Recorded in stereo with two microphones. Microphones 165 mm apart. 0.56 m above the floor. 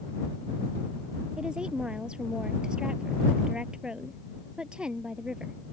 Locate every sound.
1.4 s a woman speaking: 5° right (ahead or behind)